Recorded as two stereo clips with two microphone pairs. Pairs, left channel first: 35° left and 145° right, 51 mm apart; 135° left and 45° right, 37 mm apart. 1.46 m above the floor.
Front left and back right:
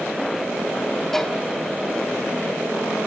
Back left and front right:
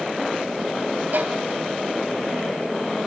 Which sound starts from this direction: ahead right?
A violin, at 1.1 s.